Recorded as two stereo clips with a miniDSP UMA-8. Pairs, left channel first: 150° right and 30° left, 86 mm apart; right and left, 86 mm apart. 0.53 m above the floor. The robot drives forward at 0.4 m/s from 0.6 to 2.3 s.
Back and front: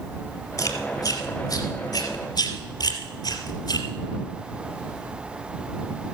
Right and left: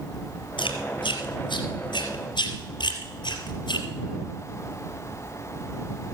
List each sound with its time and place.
0.6 s chewing: 105° right, 2.5 m; by 3.9 s 120° right, 3 m